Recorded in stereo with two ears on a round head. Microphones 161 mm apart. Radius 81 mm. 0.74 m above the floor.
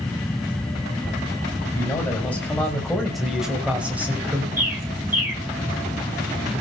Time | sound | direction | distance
1.8 | a man speaking | 15° left (ahead or behind) | 5 m
4.6 | a bird | 10° right (ahead or behind) | 3.5 m